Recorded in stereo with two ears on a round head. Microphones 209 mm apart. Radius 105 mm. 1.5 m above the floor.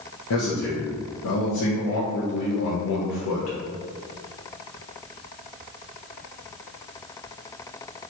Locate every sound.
0.3 s a man speaking: 75° left (ahead or behind), 0.8 m